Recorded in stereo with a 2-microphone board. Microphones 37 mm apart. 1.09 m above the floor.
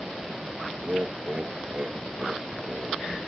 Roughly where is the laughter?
Right.